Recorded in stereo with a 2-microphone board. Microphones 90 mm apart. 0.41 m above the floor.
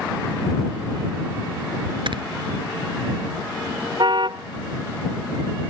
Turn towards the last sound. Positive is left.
turn(degrees=-60)  # may be behind; listen again after turning